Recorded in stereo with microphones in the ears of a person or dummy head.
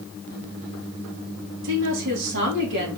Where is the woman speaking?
65° right (ahead or behind), 2.5 m.